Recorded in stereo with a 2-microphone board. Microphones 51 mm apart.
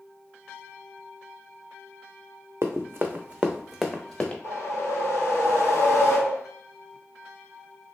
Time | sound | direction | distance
2.6 | running footsteps | 65° right (ahead or behind) | 0.6 m
4.4 | a whoosh | 60° left (ahead or behind) | 1.2 m